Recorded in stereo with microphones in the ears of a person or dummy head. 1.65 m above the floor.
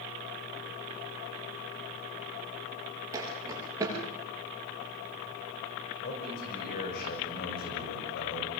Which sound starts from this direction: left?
A man speaking, at 6.0 s.